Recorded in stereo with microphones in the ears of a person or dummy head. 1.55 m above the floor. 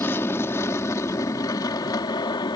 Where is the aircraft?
15° left (ahead or behind); by 2.6 s 25° left (ahead or behind).